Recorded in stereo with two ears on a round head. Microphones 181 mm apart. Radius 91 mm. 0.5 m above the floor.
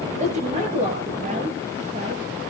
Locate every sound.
0.1 s a woman speaking: 35° right (ahead or behind), 8.5 m